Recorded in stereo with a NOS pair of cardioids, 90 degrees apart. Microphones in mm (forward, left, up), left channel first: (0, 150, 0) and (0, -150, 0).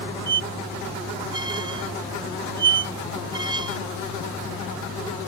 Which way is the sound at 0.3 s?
15° right.